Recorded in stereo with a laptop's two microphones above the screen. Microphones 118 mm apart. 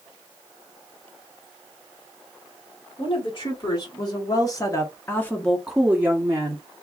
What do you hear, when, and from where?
3.0 s a woman speaking: 40° left (ahead or behind), 1.6 m; by 6.6 s 35° right (ahead or behind), 0.7 m